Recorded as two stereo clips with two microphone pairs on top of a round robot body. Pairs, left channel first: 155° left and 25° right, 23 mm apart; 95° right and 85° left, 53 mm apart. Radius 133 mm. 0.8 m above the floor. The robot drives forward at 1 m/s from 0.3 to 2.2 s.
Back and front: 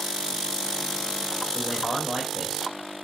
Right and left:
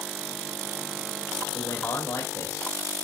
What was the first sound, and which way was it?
A man speaking, 120° right.